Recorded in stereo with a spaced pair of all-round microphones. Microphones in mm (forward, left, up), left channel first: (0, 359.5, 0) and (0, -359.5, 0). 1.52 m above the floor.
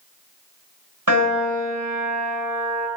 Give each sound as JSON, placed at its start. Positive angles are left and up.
{"t": 1.1, "sound": "a piano", "side_deg": -25, "distance_m": 3.5}